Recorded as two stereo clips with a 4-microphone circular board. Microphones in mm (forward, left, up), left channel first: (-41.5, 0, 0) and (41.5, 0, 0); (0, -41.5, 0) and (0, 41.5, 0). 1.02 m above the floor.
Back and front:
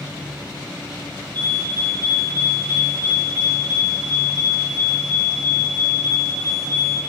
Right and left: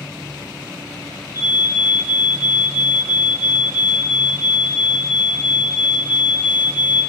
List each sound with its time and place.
1.3 s a fire alarm: 30° left, 6.5 m